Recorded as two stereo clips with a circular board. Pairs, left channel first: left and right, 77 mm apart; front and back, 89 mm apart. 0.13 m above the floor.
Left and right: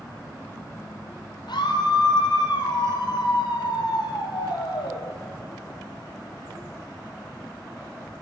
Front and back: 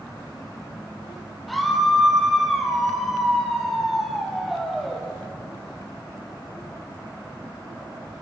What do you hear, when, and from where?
1.5 s a scream: 90° left, 3 m